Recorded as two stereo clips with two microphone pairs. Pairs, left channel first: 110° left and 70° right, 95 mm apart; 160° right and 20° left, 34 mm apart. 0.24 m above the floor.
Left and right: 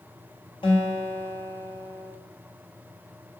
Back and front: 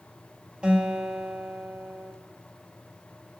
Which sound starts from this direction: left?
A guitar, at 0.6 s.